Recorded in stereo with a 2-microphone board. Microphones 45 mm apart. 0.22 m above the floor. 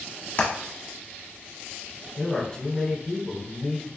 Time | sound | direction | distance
0.4 | hammering | 40° left (ahead or behind) | 1.0 m
2.2 | a man speaking | 20° left (ahead or behind) | 1.3 m